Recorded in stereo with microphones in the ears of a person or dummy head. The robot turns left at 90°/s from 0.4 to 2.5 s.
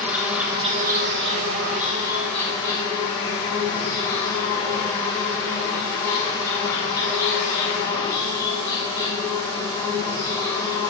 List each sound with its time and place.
0.0 s an insect: 10° right, 0.8 m; by 10.9 s 160° left, 0.8 m